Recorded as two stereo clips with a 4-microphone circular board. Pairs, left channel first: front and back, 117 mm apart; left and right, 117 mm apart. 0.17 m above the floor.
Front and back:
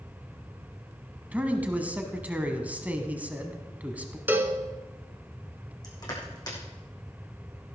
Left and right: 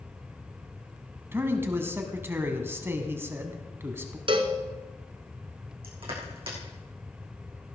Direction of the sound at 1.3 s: 125° right.